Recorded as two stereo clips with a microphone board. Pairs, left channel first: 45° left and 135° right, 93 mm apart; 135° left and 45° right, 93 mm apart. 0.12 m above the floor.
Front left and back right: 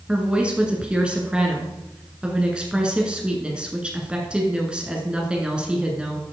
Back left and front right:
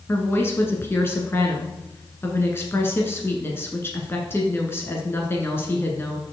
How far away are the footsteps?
I don't hear footsteps.